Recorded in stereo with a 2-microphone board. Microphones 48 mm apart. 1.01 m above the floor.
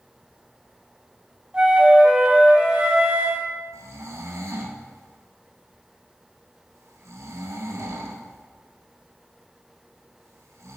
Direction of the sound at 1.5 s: 20° right (ahead or behind).